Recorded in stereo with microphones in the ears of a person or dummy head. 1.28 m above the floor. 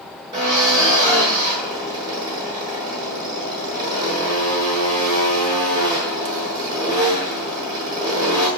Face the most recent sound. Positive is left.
turn(degrees=-25)  # may be behind; listen again after turning